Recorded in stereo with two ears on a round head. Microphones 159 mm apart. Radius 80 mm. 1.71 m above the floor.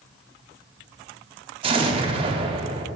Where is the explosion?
30° right (ahead or behind), 0.6 m.